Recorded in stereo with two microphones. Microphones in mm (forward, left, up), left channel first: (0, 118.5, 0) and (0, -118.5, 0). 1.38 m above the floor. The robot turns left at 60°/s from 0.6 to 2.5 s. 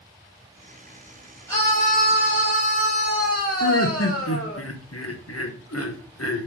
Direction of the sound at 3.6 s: 75° left (ahead or behind).